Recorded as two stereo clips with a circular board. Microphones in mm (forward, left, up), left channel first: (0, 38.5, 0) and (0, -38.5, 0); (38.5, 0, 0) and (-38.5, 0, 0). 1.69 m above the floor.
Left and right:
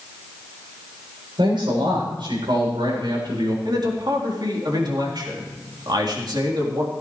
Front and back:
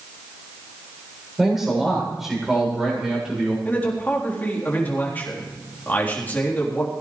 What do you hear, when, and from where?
1.4 s a man speaking: 95° right, 7.5 m
3.6 s a man speaking: 65° right, 3.5 m